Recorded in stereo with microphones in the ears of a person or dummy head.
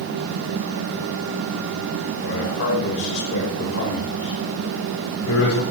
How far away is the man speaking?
About 5.5 m.